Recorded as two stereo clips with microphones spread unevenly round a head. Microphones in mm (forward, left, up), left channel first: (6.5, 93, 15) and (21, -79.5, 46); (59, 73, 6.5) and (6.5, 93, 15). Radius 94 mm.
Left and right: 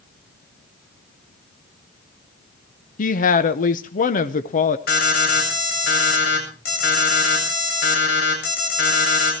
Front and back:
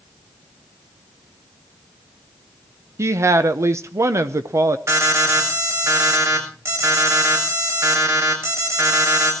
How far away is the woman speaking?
About 0.8 m.